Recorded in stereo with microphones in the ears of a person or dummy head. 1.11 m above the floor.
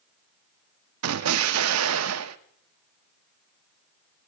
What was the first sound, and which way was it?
An explosion, 90° right.